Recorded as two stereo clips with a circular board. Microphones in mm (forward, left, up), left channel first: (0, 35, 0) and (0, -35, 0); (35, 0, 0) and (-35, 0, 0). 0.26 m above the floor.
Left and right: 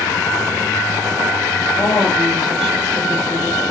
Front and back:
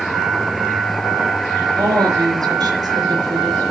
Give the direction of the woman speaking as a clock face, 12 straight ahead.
6 o'clock.